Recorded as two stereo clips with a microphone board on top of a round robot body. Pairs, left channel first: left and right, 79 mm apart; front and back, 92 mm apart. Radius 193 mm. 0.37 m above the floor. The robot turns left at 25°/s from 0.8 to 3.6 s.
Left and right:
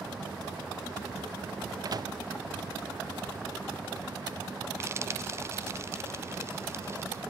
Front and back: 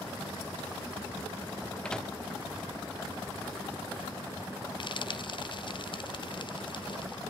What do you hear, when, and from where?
1.9 s a microwave: 75° right, 1.0 m; by 2.1 s 85° right, 1.0 m
4.8 s frying: 30° right, 1.2 m